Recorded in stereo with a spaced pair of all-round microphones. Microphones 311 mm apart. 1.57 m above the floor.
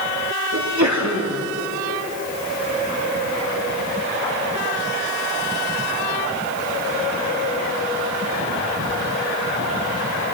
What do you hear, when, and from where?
0.5 s a sneeze: 65° right (ahead or behind), 3 m